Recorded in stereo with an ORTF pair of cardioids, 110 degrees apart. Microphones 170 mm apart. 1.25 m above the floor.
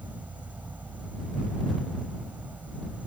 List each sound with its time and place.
0.0 s an insect: 10° right